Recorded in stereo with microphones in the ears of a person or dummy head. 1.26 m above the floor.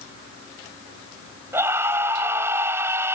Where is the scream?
20° right (ahead or behind).